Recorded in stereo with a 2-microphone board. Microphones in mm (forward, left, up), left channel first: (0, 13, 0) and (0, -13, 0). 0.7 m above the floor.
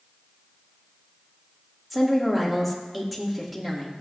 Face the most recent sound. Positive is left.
turn(degrees=-5)  # may be behind; listen again after turning